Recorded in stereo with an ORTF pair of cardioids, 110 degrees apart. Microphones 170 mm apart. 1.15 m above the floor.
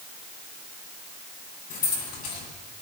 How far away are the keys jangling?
About 5.5 m.